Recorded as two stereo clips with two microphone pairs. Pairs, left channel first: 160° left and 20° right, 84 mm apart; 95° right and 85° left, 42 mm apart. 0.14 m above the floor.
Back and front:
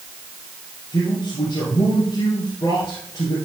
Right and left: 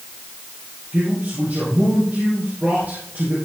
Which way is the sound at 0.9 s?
115° left.